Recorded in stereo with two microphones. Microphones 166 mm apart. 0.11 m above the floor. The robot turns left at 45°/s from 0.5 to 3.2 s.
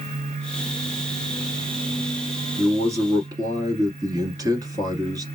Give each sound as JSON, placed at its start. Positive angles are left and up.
{"t": 2.6, "sound": "a man speaking", "side_deg": -10, "distance_m": 1.5}